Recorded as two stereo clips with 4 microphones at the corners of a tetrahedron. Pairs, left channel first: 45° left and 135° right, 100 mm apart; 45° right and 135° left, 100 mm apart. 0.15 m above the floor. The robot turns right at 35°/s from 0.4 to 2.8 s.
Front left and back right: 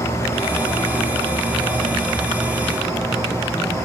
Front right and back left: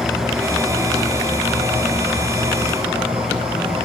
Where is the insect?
80° left, 5 m; by 3.9 s 165° left, 5 m.